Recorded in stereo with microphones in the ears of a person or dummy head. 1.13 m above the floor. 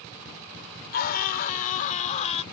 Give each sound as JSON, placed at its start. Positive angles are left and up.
{"t": 0.9, "sound": "a scream", "side_deg": 60}